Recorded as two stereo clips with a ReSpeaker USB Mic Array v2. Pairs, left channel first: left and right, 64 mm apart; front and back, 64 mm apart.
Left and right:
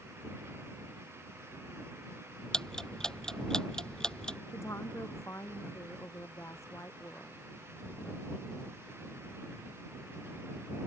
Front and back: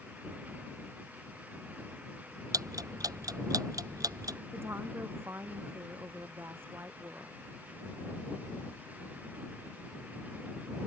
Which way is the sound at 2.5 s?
170° left.